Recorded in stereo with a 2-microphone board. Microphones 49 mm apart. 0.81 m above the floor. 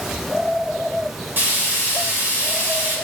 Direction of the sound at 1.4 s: 45° right (ahead or behind).